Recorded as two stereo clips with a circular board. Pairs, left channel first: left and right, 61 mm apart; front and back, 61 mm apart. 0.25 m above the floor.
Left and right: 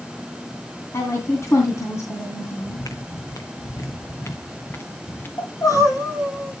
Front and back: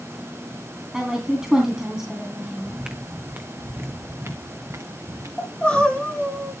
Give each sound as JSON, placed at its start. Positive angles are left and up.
{"t": 0.9, "sound": "a woman speaking", "azimuth_deg": 100, "distance_m": 2.5}
{"t": 2.6, "sound": "footsteps", "azimuth_deg": 100, "distance_m": 1.1}
{"t": 5.4, "sound": "crying", "azimuth_deg": 75, "distance_m": 9.0}